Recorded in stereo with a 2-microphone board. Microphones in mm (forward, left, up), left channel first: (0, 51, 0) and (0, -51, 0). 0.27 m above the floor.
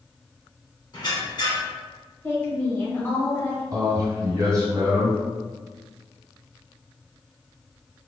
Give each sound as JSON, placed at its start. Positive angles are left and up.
{"t": 0.9, "sound": "a squeak", "side_deg": 45, "distance_m": 1.7}
{"t": 2.2, "sound": "a woman speaking", "side_deg": 20, "distance_m": 0.9}
{"t": 3.7, "sound": "a man speaking", "side_deg": -35, "distance_m": 1.9}